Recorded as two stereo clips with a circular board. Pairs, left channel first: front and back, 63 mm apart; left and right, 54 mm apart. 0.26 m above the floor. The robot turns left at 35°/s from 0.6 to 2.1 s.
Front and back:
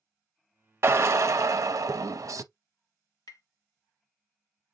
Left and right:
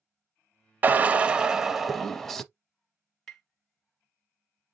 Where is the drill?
140° right, 0.6 m; by 2.5 s 175° left, 0.6 m.